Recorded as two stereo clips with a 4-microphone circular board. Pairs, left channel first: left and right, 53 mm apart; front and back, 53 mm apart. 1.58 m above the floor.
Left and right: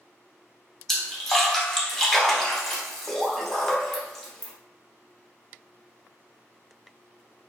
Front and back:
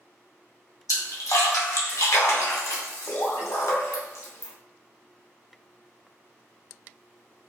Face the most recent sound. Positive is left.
turn(degrees=10)